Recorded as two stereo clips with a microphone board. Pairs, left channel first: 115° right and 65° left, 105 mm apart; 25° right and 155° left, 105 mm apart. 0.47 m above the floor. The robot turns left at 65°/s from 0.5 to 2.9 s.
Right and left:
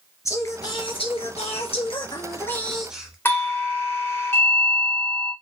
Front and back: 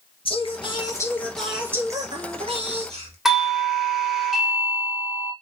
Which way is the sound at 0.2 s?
55° right.